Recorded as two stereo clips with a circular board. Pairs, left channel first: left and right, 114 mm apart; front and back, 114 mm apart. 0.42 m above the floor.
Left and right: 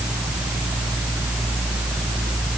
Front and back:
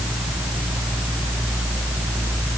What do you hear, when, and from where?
Only background noise.